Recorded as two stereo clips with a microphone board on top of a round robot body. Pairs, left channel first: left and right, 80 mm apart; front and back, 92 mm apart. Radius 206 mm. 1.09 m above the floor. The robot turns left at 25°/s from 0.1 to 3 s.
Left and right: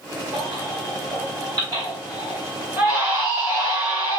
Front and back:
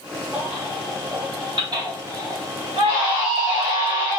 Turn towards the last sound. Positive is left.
turn(degrees=180)